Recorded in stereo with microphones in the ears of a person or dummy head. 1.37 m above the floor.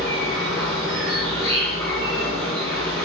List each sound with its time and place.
0.0 s an insect: 10° left (ahead or behind), 2 m